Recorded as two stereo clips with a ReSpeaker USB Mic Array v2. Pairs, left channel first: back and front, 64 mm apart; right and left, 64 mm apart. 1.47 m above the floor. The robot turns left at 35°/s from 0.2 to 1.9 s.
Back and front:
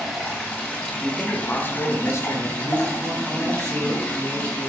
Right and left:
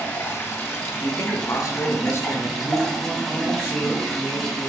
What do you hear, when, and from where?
0.0 s running water: 105° right, 1.3 m; by 4.7 s 165° right, 1.3 m
1.0 s a man speaking: 100° right, 0.8 m; by 2.5 s 135° right, 0.8 m
2.6 s a man speaking: 45° right, 2.5 m